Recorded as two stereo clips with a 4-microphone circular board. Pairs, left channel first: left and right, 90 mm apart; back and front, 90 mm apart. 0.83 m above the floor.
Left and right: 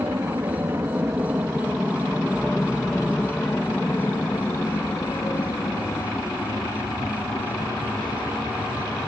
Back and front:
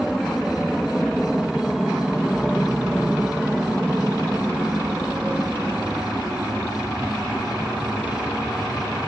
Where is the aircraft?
95° right; by 9.1 s 75° left.